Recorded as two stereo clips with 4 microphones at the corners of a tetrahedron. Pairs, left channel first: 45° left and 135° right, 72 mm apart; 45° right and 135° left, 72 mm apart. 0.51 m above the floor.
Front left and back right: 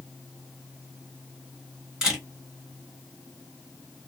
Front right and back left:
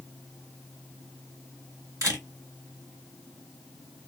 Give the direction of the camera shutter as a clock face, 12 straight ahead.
7 o'clock.